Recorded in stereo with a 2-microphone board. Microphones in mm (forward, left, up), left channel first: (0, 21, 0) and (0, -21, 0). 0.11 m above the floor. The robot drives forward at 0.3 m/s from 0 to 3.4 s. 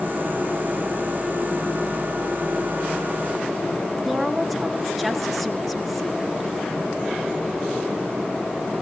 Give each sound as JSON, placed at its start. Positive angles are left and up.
{"t": 4.0, "sound": "a woman speaking", "side_deg": -5, "distance_m": 1.5}